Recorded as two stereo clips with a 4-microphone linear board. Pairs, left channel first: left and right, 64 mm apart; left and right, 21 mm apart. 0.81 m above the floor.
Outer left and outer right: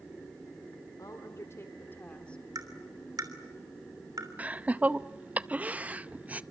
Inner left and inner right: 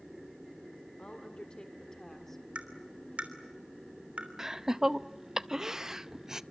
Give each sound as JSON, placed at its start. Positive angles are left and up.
{"t": 1.0, "sound": "a woman speaking", "side_deg": 55, "distance_m": 2.0}
{"t": 2.5, "sound": "tapping", "side_deg": -70, "distance_m": 3.0}
{"t": 4.4, "sound": "laughter", "side_deg": -20, "distance_m": 0.6}